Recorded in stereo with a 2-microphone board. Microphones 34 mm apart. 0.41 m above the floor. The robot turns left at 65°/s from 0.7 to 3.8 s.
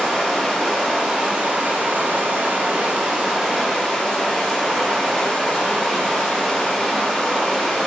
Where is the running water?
Straight ahead, 0.8 m; by 7.9 s 160° left, 0.8 m.